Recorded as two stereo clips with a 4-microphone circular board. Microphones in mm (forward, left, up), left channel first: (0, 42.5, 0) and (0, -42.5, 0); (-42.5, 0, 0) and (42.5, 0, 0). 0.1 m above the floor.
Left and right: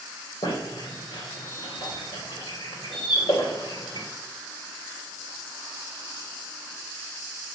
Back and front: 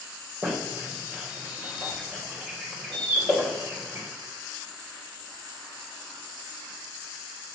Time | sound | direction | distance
0.4 | a squeak | 80° left | 4 m